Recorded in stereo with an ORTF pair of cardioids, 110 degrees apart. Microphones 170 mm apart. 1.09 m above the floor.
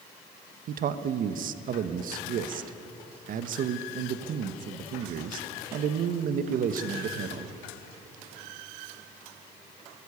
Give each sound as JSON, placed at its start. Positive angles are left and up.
{"t": 0.7, "sound": "a man speaking", "azimuth_deg": -60, "distance_m": 1.2}